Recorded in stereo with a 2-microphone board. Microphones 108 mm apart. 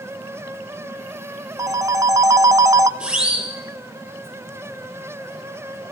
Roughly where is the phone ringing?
Right.